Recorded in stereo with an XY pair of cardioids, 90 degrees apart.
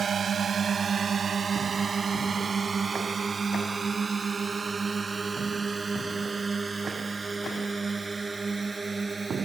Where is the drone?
50° right; by 9.4 s 25° right.